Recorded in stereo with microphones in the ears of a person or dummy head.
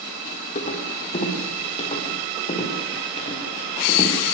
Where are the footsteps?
35° left (ahead or behind), 5 m; by 4.1 s 30° left (ahead or behind), 7.5 m.